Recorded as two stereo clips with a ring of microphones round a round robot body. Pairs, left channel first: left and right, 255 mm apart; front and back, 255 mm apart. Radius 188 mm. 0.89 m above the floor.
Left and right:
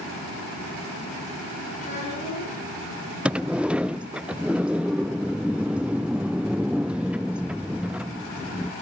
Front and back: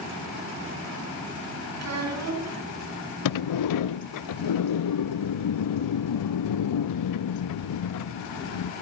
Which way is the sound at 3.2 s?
5° right.